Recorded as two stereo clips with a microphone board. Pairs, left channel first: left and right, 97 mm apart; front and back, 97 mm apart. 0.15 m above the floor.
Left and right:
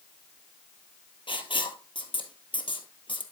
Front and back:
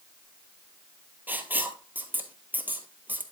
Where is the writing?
110° left, 1.0 m.